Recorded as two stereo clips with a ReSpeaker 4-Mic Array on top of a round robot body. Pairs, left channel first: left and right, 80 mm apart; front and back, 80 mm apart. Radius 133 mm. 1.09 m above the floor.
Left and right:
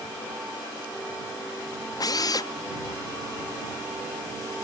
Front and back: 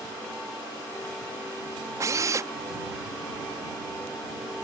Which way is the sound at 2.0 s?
130° left.